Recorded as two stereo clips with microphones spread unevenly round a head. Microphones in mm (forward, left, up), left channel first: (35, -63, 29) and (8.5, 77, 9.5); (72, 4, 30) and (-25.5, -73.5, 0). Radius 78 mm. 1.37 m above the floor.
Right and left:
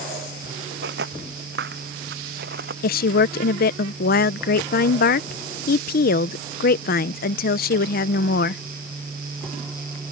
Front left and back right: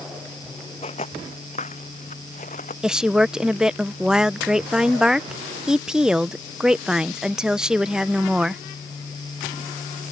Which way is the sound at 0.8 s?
90° left.